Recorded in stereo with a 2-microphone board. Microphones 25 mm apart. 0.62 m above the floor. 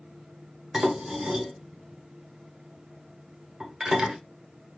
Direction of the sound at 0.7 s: 35° right (ahead or behind).